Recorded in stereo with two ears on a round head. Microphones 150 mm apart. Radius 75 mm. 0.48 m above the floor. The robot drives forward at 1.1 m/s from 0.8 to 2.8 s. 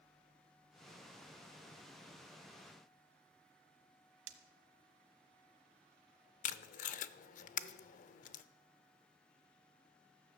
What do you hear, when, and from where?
4.3 s breaking glass: 85° right, 1.2 m
6.4 s tape being pulled: 50° left (ahead or behind), 0.6 m